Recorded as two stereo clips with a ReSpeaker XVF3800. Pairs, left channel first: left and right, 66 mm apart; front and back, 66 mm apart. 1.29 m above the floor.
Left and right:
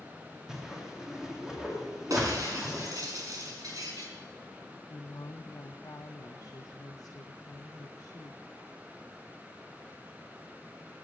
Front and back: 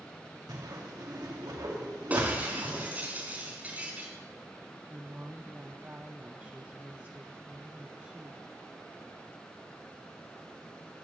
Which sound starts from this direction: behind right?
Breaking glass, at 2.1 s.